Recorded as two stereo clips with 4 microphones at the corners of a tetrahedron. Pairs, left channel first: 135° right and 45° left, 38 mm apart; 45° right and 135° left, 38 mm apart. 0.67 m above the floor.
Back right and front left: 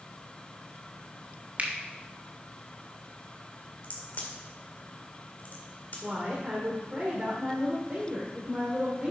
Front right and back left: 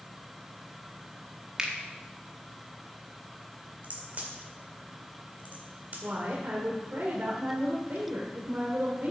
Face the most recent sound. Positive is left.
turn(degrees=100)